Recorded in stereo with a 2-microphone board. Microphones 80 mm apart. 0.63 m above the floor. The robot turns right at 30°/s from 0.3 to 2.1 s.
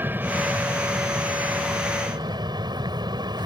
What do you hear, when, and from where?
0.0 s an aircraft: 155° right; by 3.5 s 100° right